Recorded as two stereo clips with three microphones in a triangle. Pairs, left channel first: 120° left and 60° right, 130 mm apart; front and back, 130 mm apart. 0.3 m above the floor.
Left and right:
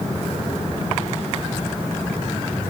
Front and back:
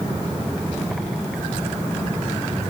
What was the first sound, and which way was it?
Only background noise.